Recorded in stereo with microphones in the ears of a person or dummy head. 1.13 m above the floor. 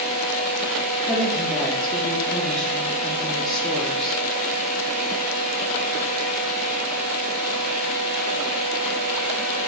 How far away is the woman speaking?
About 0.6 m.